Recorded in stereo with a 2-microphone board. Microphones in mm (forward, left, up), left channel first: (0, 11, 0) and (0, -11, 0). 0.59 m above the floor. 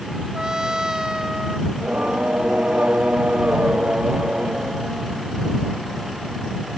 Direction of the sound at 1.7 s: 80° right.